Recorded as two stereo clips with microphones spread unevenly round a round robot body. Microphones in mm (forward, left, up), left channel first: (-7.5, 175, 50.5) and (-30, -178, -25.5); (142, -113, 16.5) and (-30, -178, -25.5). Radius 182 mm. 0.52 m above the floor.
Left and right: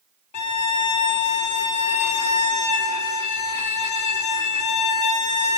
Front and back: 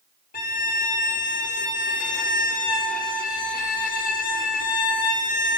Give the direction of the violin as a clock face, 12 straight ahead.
10 o'clock.